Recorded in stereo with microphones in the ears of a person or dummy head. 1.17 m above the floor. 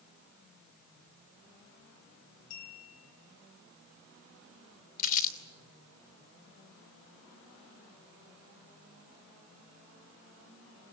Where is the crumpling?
40° left (ahead or behind), 3 m.